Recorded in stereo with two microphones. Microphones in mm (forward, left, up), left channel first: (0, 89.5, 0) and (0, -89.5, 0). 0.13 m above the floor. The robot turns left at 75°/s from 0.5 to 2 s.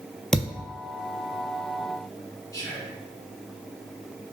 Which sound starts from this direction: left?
Whispering, at 2.5 s.